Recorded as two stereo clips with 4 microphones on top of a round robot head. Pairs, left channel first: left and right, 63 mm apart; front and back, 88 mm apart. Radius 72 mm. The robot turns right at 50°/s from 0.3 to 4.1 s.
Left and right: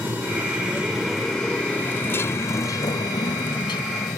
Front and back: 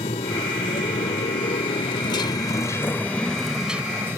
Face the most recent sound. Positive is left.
turn(degrees=115)